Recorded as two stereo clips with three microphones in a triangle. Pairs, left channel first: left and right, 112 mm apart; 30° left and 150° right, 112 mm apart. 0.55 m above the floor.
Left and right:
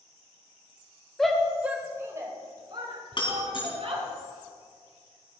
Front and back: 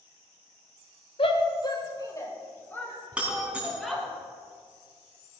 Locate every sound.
1.2 s a shout: 5° left, 2 m; by 4.0 s 55° right, 5 m
3.1 s breaking glass: 130° left, 3.5 m